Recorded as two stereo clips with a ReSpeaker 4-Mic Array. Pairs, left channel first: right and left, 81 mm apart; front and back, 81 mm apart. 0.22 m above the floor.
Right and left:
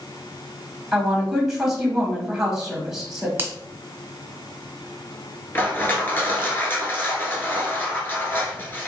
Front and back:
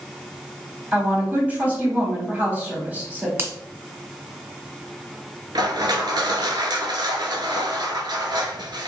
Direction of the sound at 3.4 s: 135° left.